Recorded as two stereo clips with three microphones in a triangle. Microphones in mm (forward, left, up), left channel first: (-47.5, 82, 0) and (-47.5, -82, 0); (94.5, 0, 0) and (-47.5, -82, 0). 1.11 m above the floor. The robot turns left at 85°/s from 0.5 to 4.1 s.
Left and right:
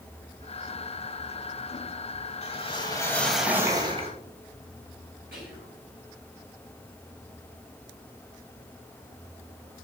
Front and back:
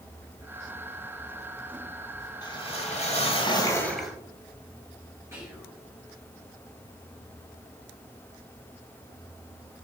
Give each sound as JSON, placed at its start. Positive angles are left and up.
{"t": 2.4, "sound": "a whoosh", "azimuth_deg": 80, "distance_m": 1.1}
{"t": 5.3, "sound": "whispering", "azimuth_deg": -75, "distance_m": 2.0}